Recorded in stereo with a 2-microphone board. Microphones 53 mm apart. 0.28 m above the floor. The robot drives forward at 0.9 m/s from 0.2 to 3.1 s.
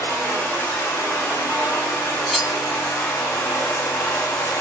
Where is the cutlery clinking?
Centre (ahead or behind), 0.6 m.